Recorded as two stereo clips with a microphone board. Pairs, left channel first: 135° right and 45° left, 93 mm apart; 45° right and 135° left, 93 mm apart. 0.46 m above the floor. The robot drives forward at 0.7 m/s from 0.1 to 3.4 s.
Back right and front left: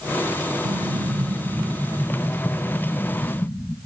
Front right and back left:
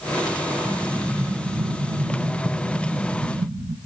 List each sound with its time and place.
0.7 s an explosion: 40° left, 0.7 m; by 3.8 s 165° left, 1.5 m